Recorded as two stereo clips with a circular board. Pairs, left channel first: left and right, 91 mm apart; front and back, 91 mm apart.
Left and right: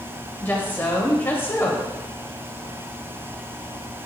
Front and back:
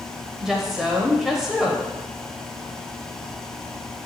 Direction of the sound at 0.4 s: 100° left.